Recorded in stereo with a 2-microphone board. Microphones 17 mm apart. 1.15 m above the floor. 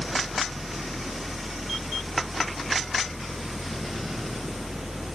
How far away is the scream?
No scream in this recording.